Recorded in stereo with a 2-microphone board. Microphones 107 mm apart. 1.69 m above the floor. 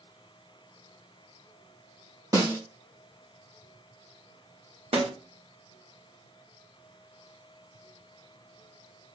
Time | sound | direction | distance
2.3 | a snare drum | 35° right (ahead or behind) | 2 m
4.9 | a snare drum | 75° right (ahead or behind) | 3 m